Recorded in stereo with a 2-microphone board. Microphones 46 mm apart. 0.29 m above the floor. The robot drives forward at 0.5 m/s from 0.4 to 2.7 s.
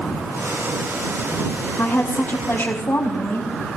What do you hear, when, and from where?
1.8 s a woman speaking: 55° left (ahead or behind), 1.7 m